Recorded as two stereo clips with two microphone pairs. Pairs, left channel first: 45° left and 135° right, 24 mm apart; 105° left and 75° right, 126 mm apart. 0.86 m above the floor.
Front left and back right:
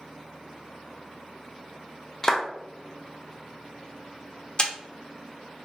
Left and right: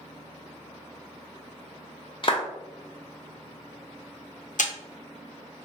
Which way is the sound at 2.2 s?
115° left.